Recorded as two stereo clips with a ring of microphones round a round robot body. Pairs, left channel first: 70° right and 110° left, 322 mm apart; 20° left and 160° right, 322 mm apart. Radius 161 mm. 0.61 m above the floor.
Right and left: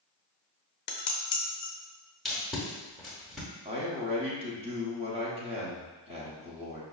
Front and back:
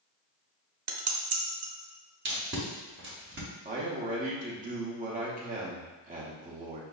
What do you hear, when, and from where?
0.9 s dishes clattering: 120° right, 0.6 m
2.2 s tape being pulled: 155° right, 0.9 m
3.6 s a man speaking: 165° left, 0.7 m